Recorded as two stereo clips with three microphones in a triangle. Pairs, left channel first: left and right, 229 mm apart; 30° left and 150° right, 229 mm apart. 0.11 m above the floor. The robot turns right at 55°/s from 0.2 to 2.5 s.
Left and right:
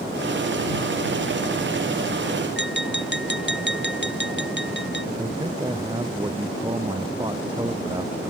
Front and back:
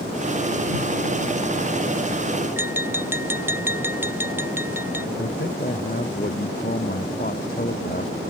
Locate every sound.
2.6 s tapping: 130° left
5.2 s a man speaking: 20° right